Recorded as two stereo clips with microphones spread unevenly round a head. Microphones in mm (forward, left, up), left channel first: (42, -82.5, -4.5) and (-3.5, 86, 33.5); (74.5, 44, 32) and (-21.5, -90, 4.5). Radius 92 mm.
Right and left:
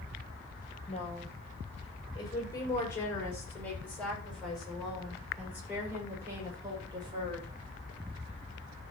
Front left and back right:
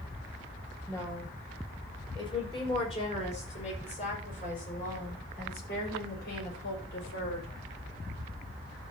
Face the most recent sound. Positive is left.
turn(degrees=40)